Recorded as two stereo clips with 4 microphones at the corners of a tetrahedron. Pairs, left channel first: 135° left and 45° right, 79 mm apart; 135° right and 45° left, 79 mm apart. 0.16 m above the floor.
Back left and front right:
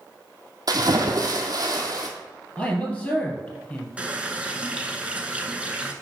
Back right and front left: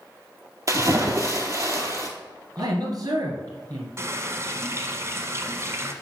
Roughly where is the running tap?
Ahead.